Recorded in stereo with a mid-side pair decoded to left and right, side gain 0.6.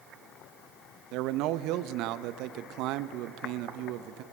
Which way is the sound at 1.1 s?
70° right.